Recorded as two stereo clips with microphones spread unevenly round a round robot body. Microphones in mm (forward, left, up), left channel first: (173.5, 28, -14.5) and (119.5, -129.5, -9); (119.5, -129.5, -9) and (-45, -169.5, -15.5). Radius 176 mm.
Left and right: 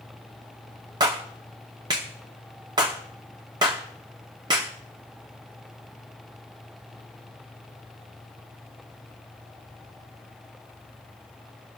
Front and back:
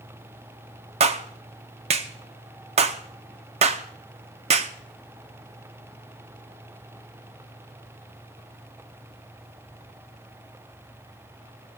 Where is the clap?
170° right, 0.6 m.